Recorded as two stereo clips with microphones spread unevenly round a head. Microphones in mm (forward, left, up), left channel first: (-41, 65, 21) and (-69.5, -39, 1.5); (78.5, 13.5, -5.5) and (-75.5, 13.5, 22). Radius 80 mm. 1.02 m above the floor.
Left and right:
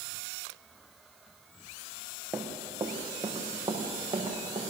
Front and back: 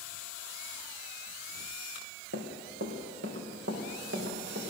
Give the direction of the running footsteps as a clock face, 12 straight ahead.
6 o'clock.